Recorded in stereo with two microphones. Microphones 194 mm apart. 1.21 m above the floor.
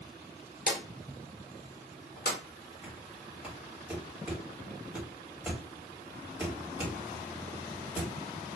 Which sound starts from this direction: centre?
Knocking, at 2.8 s.